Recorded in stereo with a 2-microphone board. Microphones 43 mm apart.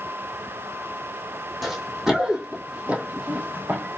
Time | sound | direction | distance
1.6 | running footsteps | 5° right (ahead or behind) | 1.6 m